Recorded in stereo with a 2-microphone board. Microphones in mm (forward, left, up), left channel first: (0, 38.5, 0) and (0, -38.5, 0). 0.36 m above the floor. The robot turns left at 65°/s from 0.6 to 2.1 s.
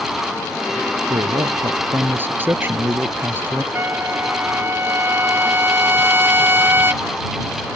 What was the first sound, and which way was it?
A man speaking, 85° right.